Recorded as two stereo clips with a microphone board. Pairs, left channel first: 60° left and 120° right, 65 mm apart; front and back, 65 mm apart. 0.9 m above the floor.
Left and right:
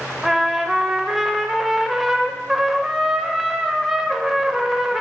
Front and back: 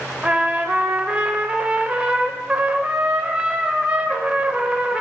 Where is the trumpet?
160° left, 0.6 m.